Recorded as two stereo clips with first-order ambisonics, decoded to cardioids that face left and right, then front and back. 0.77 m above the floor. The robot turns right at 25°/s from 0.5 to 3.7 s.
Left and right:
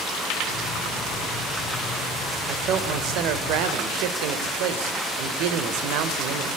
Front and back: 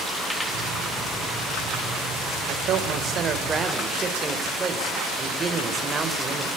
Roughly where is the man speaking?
Behind right.